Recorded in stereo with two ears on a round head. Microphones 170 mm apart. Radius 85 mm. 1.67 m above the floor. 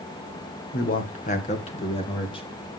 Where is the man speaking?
50° left (ahead or behind), 1.7 m; by 2.5 s 30° left (ahead or behind), 3 m.